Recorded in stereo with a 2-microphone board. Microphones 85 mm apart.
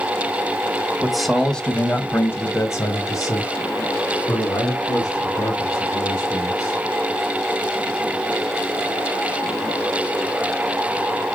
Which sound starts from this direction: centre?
A man speaking, at 1.0 s.